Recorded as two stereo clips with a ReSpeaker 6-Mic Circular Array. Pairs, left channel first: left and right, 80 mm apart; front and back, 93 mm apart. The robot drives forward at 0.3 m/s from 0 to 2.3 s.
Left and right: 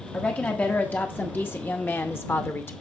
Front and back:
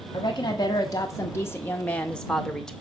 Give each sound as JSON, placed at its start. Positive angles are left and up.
{"t": 0.1, "sound": "a woman speaking", "azimuth_deg": 20, "distance_m": 0.9}